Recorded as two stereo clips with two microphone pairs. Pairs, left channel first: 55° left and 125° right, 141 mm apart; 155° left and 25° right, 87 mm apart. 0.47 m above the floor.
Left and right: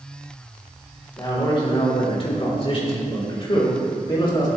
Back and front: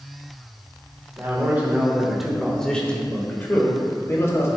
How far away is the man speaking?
About 1.7 m.